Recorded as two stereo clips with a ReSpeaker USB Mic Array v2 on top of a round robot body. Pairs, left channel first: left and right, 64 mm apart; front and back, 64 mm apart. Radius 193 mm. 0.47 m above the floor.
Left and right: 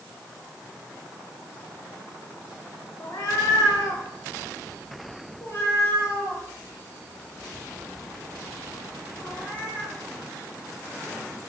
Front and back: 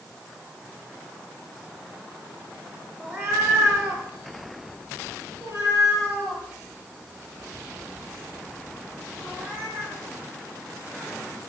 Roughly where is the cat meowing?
Behind left.